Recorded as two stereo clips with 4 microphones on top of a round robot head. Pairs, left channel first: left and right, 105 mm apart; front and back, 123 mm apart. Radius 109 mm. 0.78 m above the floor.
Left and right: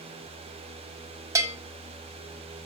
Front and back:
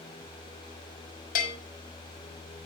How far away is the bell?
About 1.3 m.